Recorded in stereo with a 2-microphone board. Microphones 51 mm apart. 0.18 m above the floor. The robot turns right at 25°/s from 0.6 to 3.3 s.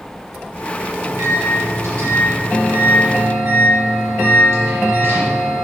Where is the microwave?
120° right, 3.5 m; by 5.5 s 60° right, 3.5 m.